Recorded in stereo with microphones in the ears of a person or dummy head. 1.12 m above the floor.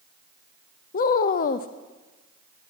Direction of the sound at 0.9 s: 50° left (ahead or behind).